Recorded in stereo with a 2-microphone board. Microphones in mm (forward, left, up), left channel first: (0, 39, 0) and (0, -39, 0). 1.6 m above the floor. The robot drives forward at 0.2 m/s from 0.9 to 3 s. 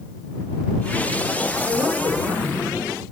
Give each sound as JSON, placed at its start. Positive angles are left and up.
{"t": 1.7, "sound": "a woman speaking", "side_deg": -45, "distance_m": 2.5}